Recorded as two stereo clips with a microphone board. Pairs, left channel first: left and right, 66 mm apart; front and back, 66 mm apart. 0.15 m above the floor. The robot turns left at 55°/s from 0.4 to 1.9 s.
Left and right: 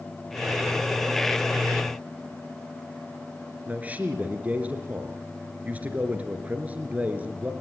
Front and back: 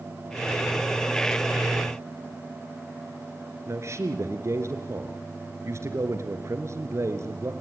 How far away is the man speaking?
About 2 m.